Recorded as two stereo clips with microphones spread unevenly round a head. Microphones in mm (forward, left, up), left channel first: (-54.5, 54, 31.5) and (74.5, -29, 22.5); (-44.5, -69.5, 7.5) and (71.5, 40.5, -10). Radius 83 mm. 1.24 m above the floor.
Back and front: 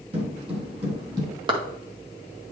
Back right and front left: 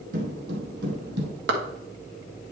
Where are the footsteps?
15° left, 2.5 m; by 1.3 s 30° left, 3 m.